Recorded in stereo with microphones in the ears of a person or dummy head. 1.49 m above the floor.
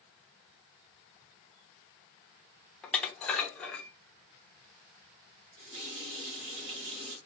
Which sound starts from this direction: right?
A running tap, at 5.6 s.